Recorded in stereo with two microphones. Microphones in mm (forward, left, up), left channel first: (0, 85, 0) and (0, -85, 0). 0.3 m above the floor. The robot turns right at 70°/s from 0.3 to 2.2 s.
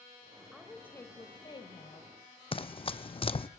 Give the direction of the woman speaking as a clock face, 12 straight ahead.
12 o'clock.